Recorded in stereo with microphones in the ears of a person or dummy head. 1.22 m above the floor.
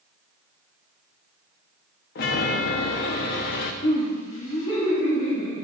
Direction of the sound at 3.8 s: 40° left (ahead or behind).